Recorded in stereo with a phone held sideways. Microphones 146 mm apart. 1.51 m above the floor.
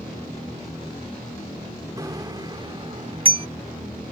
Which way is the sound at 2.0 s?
25° right (ahead or behind).